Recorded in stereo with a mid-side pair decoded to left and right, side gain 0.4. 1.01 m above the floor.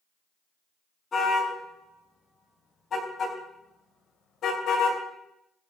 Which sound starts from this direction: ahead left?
A car horn, at 1.1 s.